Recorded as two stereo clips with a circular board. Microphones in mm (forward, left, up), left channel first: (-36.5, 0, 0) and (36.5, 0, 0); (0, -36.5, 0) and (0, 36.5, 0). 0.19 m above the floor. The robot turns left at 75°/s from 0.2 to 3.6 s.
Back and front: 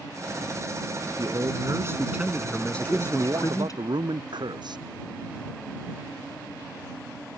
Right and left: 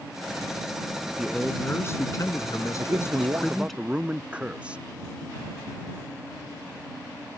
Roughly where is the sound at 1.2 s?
Ahead.